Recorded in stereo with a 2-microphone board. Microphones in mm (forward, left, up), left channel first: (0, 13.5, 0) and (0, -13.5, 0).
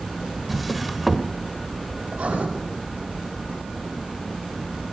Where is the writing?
60° right (ahead or behind), 7.5 m.